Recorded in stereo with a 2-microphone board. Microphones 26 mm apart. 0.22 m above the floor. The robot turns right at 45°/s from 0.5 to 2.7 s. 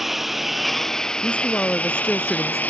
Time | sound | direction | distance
0.0 | a lawn mower | 10° right (ahead or behind) | ?
1.2 | a woman speaking | 105° left | ?